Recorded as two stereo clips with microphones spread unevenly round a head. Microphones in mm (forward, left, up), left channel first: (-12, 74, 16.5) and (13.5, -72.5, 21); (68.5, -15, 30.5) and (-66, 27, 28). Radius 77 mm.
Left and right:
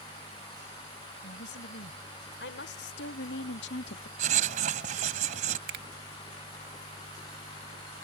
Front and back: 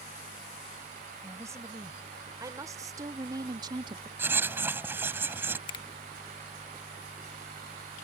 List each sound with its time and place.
1.2 s a woman speaking: 90° left; by 4.1 s 105° left
4.2 s writing: 120° right
5.7 s a finger snap: 75° right